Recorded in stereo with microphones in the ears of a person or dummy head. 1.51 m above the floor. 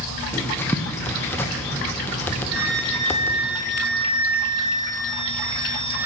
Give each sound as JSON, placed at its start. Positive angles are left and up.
{"t": 0.3, "sound": "writing", "side_deg": 5, "distance_m": 0.5}
{"t": 2.5, "sound": "a flute", "side_deg": -70, "distance_m": 1.7}